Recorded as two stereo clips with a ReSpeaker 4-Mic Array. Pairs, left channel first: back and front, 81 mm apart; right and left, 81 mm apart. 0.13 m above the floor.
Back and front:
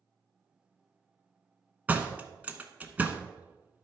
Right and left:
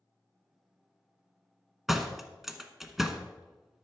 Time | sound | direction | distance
1.9 | a door slam | 10° left | 0.9 m